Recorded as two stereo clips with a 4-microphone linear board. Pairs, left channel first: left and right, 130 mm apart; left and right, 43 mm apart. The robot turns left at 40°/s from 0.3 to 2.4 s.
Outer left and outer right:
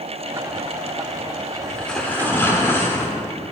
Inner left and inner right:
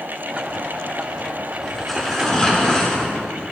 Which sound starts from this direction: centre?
Tearing paper, at 1.6 s.